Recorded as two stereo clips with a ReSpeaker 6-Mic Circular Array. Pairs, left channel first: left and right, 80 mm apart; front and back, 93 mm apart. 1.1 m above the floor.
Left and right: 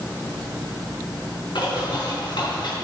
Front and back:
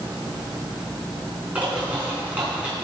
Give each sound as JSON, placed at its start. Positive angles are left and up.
{"t": 1.6, "sound": "a bird", "azimuth_deg": 105, "distance_m": 4.5}